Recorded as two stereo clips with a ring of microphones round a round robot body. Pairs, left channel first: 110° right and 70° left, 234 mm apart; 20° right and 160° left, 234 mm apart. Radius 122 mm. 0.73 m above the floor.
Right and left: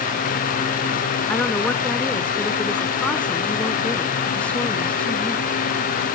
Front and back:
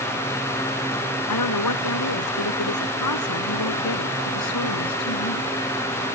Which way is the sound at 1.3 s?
25° right.